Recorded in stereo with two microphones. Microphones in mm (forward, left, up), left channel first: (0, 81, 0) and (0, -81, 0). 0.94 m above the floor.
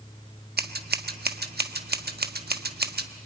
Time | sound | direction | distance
0.6 | scissors | 80° right | 1.1 m